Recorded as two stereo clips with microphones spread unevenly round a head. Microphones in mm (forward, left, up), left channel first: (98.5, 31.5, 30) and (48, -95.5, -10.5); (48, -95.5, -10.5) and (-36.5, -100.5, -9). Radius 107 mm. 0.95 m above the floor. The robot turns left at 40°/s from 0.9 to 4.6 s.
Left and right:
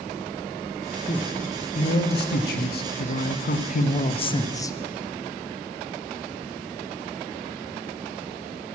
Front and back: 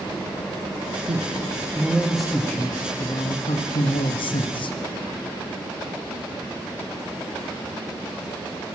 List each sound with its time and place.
1.1 s a man speaking: 135° left, 0.9 m; by 4.8 s 5° right, 0.9 m